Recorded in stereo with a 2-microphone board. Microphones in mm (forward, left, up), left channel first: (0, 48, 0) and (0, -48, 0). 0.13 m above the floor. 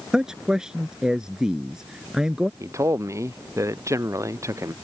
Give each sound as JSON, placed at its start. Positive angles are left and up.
{"t": 0.1, "sound": "a man speaking", "side_deg": -5}
{"t": 2.6, "sound": "a man speaking", "side_deg": -35}